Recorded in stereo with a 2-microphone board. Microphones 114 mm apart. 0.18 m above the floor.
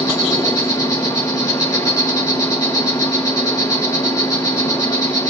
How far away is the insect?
About 3 m.